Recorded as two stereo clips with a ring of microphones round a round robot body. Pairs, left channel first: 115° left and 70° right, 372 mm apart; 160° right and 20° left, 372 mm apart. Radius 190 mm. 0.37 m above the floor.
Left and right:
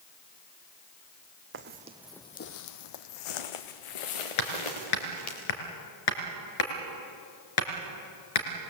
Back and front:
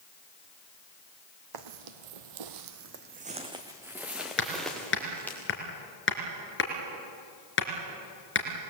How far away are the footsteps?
About 1.4 m.